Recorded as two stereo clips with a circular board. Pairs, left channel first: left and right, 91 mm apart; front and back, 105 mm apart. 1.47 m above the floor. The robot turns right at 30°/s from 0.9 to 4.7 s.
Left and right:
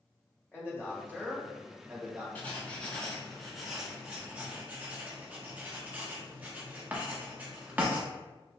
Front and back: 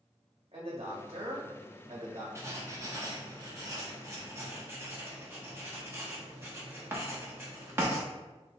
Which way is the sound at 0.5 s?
155° left.